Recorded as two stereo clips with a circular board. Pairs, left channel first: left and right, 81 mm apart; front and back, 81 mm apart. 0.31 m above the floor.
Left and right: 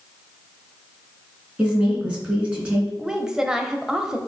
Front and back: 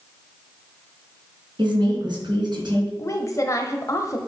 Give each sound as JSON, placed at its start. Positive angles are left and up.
{"t": 1.6, "sound": "a woman speaking", "azimuth_deg": -165, "distance_m": 3.0}
{"t": 3.0, "sound": "a woman speaking", "azimuth_deg": -10, "distance_m": 1.1}